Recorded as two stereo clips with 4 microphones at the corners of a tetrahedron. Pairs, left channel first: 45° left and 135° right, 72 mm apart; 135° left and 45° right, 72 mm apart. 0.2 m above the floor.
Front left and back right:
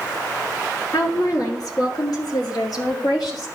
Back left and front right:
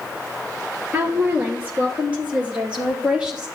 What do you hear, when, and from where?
0.9 s a woman speaking: 15° left, 3 m; by 3.5 s 30° left, 4.5 m